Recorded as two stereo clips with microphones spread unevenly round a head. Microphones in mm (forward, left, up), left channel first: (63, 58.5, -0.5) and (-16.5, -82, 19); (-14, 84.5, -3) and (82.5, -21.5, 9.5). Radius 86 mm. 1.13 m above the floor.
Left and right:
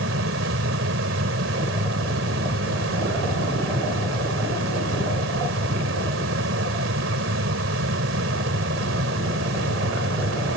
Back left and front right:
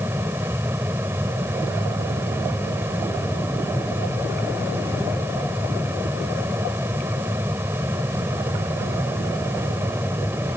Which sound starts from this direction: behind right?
A fan, at 0.0 s.